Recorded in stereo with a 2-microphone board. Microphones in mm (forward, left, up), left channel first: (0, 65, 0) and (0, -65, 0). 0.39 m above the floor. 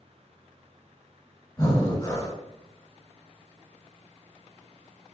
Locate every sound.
1.6 s breathing: 25° left (ahead or behind), 1.6 m